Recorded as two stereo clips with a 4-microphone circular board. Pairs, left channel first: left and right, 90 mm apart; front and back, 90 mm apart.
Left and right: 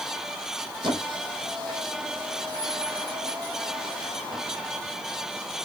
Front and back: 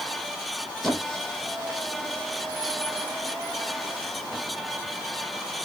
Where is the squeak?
85° right, 1.4 m.